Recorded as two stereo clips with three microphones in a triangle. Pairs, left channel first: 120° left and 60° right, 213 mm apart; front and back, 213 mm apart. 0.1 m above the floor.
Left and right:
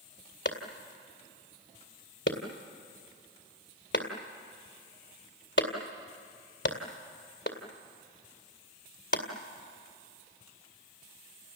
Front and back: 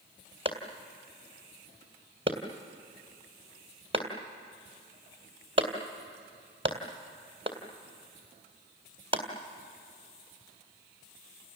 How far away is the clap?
About 2 m.